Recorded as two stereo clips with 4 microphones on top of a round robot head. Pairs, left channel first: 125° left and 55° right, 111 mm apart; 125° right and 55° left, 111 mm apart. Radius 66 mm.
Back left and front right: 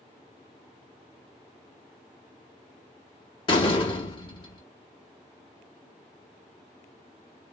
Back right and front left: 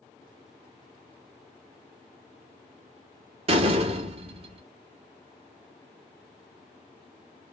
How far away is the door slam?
About 1.0 m.